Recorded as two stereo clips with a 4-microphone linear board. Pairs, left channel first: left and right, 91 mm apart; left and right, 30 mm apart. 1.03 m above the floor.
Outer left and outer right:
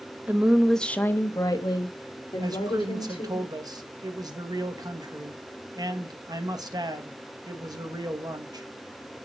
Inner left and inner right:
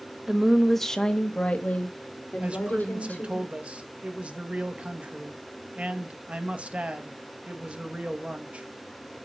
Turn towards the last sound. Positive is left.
turn(degrees=-45)  # may be behind; listen again after turning